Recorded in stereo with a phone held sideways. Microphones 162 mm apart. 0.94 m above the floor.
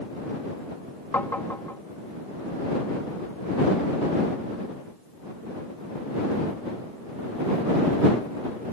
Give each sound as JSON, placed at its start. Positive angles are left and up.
{"t": 1.1, "sound": "tapping", "side_deg": 15}